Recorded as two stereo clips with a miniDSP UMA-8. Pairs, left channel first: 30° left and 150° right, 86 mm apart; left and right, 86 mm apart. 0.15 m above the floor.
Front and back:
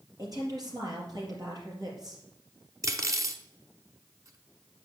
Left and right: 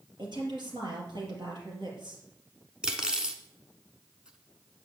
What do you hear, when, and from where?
0.2 s a woman speaking: 115° right, 4 m
2.8 s cutlery clinking: 165° right, 1.0 m